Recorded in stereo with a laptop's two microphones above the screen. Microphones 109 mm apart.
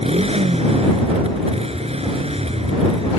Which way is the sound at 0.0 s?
65° right (ahead or behind).